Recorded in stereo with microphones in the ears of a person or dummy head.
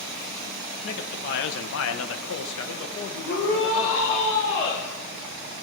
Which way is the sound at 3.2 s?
40° left (ahead or behind).